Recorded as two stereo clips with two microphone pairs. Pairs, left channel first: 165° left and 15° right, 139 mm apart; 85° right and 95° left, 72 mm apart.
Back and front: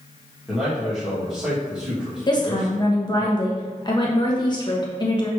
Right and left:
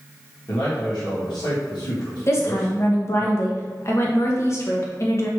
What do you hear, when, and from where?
0.5 s a man speaking: 100° right, 2.0 m
2.3 s a woman speaking: 140° right, 1.2 m